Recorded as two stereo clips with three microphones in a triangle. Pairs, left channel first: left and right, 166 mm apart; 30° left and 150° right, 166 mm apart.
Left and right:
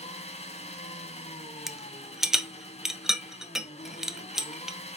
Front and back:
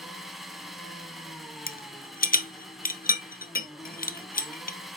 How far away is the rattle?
About 0.7 m.